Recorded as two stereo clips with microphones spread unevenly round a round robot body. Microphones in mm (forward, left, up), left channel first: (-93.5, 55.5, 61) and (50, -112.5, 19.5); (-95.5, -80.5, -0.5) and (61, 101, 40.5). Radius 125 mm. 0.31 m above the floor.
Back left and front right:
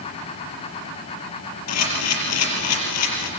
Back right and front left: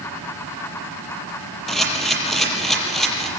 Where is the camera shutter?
140° left, 5.5 m.